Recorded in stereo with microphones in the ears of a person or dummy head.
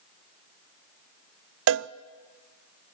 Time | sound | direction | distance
1.7 | a cowbell | 70° right (ahead or behind) | 0.6 m